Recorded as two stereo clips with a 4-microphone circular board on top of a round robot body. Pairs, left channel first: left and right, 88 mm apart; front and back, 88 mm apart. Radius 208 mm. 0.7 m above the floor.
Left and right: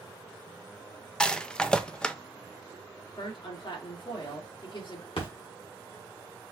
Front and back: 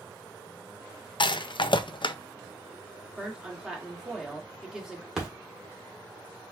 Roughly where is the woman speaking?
Left.